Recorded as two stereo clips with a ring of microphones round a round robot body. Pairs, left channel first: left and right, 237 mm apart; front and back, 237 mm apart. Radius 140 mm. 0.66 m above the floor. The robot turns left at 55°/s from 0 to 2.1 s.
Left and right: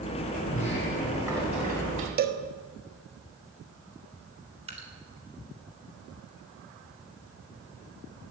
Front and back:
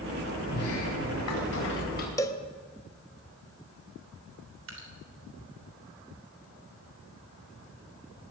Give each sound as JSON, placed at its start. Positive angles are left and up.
{"t": 0.5, "sound": "a sliding door", "azimuth_deg": 35, "distance_m": 4.0}
{"t": 2.2, "sound": "a cowbell", "azimuth_deg": -70, "distance_m": 1.2}
{"t": 4.7, "sound": "dripping", "azimuth_deg": -155, "distance_m": 3.5}